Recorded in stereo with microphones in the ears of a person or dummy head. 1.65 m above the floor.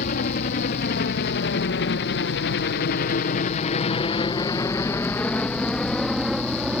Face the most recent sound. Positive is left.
turn(degrees=-5)  # may be behind; listen again after turning